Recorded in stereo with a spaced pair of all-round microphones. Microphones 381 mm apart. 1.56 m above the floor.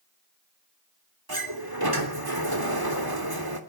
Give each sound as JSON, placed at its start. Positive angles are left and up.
{"t": 1.3, "sound": "a sliding door", "side_deg": -70, "distance_m": 3.0}